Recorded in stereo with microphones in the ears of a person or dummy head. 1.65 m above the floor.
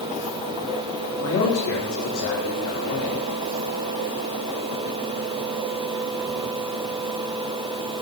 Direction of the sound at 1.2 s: 55° left (ahead or behind).